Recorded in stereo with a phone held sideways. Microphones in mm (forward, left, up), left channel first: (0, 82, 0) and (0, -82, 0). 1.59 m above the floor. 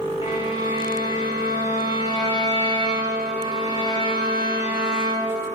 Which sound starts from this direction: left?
A violin, at 0.2 s.